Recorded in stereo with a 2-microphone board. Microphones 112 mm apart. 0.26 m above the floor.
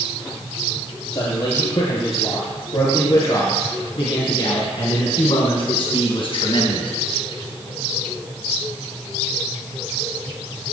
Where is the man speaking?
45° left (ahead or behind), 5.5 m; by 6.9 s 50° left (ahead or behind), 1.9 m.